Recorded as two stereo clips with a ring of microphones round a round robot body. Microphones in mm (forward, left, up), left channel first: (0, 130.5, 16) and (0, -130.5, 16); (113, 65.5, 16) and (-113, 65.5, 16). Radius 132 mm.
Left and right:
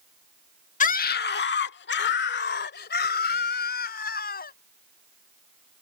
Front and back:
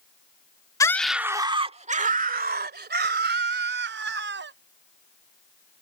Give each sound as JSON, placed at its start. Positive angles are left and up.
{"t": 0.8, "sound": "a scream", "azimuth_deg": 65}